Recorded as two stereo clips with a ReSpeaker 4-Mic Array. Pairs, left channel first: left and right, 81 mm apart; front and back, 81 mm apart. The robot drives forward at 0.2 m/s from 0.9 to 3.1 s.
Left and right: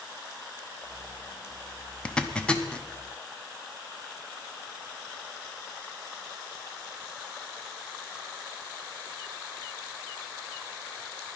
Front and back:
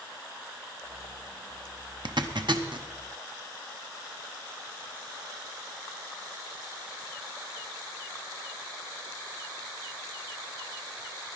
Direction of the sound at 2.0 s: 165° left.